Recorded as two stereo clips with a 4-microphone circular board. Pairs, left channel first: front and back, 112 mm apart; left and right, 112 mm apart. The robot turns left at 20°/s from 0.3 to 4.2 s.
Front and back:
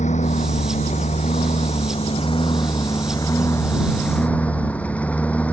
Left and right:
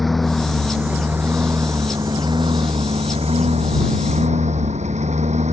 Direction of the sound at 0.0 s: Straight ahead.